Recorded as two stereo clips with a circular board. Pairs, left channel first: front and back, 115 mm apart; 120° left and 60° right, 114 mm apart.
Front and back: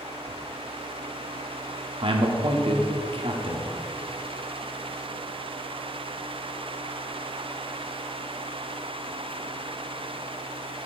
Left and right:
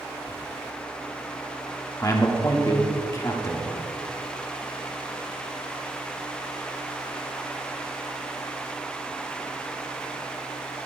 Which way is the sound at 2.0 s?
170° left.